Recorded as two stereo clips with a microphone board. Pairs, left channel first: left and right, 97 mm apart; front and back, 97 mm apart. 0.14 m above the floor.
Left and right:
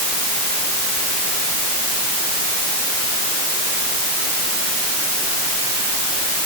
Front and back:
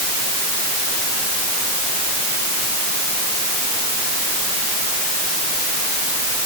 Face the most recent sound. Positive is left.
No sound to turn to.